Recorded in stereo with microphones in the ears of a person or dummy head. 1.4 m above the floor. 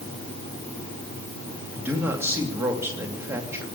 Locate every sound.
1.7 s a man speaking: 15° right (ahead or behind), 3 m